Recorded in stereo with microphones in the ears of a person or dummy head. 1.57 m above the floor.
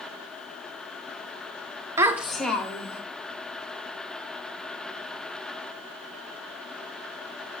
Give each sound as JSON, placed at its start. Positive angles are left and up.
{"t": 2.0, "sound": "a child speaking", "side_deg": -20, "distance_m": 0.6}